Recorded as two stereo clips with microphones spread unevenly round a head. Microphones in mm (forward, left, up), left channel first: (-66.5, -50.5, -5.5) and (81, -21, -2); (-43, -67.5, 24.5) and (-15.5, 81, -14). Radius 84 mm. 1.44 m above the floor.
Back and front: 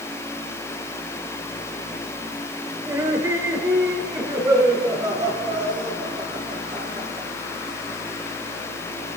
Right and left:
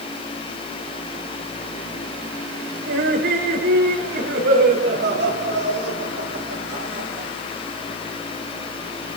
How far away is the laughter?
About 7.5 m.